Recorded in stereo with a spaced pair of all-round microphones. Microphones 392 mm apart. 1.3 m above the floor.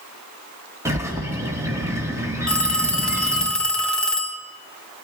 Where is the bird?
5° right (ahead or behind), 1.8 m.